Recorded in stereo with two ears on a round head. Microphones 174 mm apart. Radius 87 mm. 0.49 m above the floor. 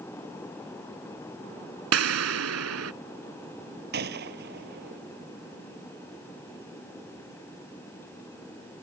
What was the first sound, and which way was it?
An explosion, 85° right.